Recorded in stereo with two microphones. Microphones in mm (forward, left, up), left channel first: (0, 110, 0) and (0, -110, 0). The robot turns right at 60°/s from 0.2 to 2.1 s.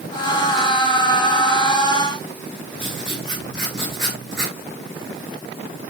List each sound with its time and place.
2.8 s writing: 55° right (ahead or behind), 5 m